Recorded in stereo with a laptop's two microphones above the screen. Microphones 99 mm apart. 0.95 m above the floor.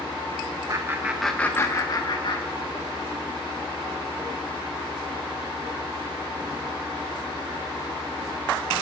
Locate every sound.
0.7 s laughter: 40° right (ahead or behind), 0.8 m; by 3.0 s 60° left (ahead or behind), 1.9 m